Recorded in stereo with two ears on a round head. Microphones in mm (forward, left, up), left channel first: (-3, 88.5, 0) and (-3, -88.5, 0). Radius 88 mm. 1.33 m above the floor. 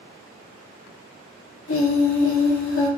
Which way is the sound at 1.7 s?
75° left (ahead or behind).